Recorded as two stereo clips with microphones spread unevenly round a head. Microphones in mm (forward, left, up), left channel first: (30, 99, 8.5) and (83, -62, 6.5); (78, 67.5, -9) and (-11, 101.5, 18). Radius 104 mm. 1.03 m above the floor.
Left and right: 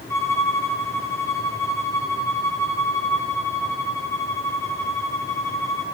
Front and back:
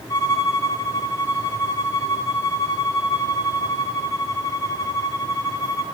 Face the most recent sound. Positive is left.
turn(degrees=35)